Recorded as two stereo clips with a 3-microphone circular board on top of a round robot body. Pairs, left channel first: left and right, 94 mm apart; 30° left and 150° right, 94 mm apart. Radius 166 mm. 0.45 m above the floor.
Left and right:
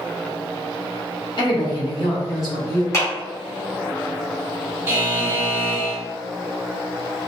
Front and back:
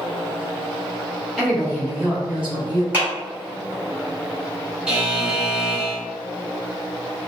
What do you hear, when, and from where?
1.4 s a woman speaking: 120° left, 1.6 m; by 2.8 s 140° left, 3 m
2.9 s a clap: 145° left, 1.8 m
4.9 s a buzzer: 85° right, 1.3 m